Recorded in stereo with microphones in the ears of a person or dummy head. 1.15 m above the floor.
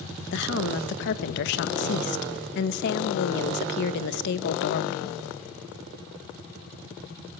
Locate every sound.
0.3 s a woman speaking: 60° left (ahead or behind), 1.1 m